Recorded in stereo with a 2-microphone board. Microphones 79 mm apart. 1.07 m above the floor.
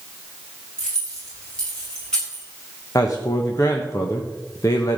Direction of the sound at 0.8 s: 10° left (ahead or behind).